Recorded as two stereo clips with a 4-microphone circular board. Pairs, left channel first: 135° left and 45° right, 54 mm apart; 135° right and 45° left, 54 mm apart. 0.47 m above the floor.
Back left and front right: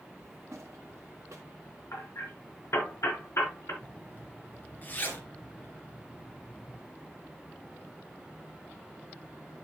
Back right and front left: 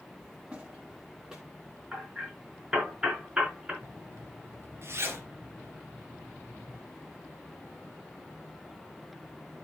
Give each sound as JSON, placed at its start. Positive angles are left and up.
{"t": 0.2, "sound": "footsteps", "azimuth_deg": -20, "distance_m": 2.5}
{"t": 1.9, "sound": "hammering", "azimuth_deg": 115, "distance_m": 4.5}
{"t": 3.8, "sound": "a zipper", "azimuth_deg": 85, "distance_m": 2.0}